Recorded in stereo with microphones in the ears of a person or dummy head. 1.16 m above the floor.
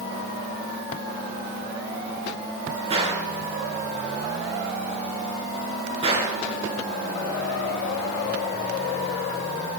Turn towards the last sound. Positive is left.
turn(degrees=-25)  # may be behind; listen again after turning